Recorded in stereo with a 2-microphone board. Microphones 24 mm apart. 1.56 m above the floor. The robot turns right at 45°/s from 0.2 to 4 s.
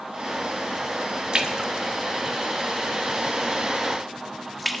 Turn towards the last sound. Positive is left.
turn(degrees=0)  # may be behind; listen again after turning